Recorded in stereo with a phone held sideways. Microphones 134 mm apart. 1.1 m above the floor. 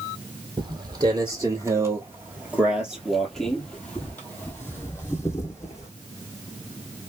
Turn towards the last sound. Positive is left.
turn(degrees=25)  # may be behind; listen again after turning